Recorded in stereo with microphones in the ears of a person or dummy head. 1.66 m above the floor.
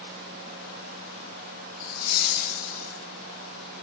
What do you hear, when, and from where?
1.8 s laughter: 45° left (ahead or behind), 0.6 m; by 3.0 s 50° left (ahead or behind), 1.8 m